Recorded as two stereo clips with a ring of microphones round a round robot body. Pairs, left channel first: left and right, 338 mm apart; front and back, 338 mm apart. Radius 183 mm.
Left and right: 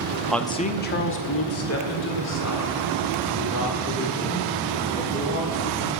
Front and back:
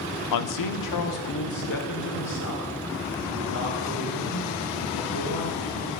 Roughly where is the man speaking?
Ahead.